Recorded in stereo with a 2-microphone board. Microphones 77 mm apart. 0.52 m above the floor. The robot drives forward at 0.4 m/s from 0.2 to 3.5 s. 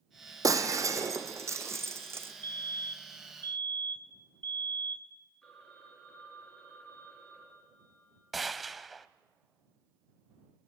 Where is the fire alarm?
30° left (ahead or behind), 2.5 m.